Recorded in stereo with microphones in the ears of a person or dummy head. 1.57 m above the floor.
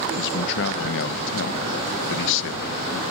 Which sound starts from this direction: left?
A man speaking, at 0.1 s.